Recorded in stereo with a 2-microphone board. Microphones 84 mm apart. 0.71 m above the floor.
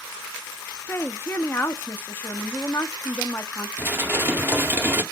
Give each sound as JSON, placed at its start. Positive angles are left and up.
{"t": 0.9, "sound": "a woman speaking", "side_deg": 25, "distance_m": 0.9}
{"t": 3.8, "sound": "dishes clattering", "side_deg": -25, "distance_m": 0.8}